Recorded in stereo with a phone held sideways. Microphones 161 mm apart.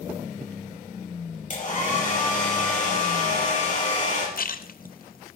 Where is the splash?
65° left (ahead or behind), 0.6 m.